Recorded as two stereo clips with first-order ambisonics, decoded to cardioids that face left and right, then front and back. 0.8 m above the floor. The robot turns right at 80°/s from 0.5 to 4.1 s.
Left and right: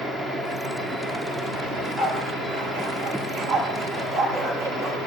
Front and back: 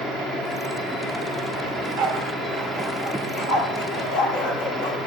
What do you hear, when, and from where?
1.7 s a dog barking: 170° left, 5 m; by 5.1 s 5° left, 5 m